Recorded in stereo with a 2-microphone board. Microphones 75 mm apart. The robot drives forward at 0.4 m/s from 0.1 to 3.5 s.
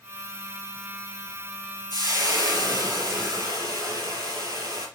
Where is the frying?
60° right (ahead or behind), 4.5 m; by 4.9 s 65° right (ahead or behind), 4.5 m.